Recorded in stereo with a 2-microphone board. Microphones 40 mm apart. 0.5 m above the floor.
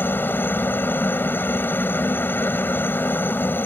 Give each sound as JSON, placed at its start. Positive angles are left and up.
{"t": 0.0, "sound": "a helicopter", "side_deg": 55}